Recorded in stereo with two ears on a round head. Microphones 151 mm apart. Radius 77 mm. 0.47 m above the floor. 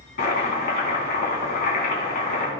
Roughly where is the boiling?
Left.